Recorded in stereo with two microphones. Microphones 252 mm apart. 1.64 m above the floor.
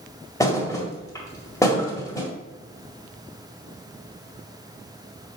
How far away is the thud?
About 1.9 m.